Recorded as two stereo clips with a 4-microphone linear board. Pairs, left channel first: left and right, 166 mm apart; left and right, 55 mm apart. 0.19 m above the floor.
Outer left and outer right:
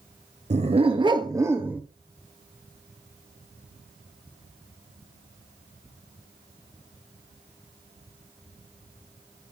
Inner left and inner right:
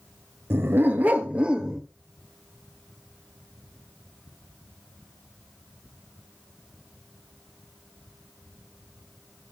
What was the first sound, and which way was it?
A dog barking, 45° right (ahead or behind).